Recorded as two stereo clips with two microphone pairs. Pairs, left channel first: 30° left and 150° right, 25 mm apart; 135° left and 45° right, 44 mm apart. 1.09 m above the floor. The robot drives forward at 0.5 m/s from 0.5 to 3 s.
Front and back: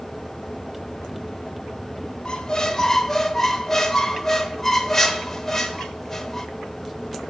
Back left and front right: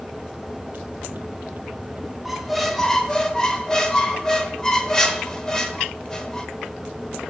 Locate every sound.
2.2 s a squeak: 45° left, 0.9 m; by 6.5 s 90° left, 0.8 m